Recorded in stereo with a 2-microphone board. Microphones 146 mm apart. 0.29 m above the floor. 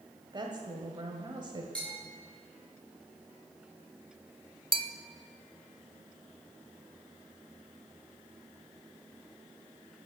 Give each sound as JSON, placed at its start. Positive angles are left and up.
{"t": 0.3, "sound": "a woman speaking", "side_deg": -30, "distance_m": 1.4}
{"t": 1.8, "sound": "a bell", "side_deg": 10, "distance_m": 5.5}
{"t": 4.7, "sound": "a bell", "side_deg": -35, "distance_m": 0.6}